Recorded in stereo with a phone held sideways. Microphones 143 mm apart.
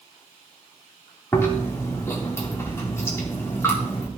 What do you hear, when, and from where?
1.3 s chewing: 20° left (ahead or behind), 3 m